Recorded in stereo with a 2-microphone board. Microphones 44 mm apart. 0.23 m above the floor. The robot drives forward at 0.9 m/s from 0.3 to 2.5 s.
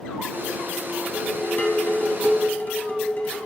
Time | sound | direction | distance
1.1 | dishes clattering | 30° left (ahead or behind) | 1.3 m